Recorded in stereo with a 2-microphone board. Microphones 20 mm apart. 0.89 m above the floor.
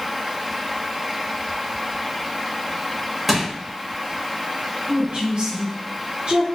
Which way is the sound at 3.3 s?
20° right (ahead or behind).